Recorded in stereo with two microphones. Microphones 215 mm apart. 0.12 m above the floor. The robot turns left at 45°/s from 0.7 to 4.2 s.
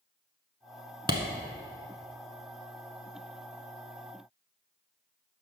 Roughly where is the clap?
Right.